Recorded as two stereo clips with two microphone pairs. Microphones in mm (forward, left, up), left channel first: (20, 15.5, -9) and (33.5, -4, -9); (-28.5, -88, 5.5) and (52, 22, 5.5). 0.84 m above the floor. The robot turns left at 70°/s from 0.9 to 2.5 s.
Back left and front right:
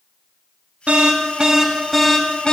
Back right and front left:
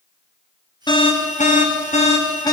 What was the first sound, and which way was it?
An alarm, 75° right.